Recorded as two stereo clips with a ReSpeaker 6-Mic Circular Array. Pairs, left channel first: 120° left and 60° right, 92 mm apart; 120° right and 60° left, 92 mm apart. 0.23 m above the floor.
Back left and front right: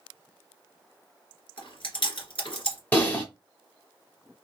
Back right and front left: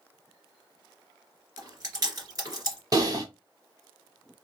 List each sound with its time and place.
1.6 s chewing: 105° left, 2.5 m
2.9 s typing on a keyboard: 60° left, 1.3 m